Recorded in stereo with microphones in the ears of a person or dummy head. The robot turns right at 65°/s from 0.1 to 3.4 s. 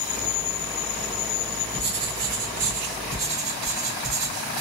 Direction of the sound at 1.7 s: 135° right.